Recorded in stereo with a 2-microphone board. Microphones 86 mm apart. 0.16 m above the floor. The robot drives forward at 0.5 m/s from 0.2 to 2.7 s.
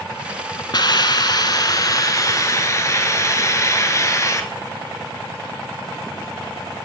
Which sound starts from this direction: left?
A hiss, at 0.7 s.